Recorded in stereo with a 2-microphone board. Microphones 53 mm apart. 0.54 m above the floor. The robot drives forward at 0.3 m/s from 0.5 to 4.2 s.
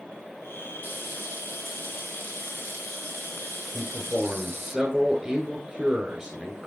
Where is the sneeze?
I don't hear a sneeze.